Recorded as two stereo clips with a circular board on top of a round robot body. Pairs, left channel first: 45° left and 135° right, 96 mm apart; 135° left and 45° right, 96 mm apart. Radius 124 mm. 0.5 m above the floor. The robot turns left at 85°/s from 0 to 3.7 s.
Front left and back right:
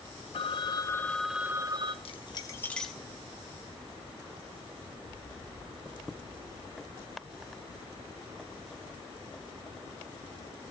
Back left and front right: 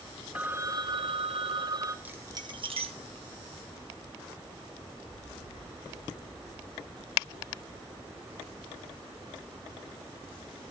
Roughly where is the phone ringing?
Ahead left.